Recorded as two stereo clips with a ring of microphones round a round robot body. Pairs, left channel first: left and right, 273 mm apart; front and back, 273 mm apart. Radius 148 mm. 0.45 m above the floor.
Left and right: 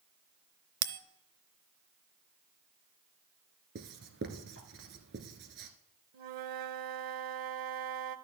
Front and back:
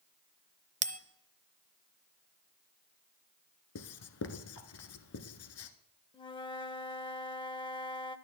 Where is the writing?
35° right, 1.0 m.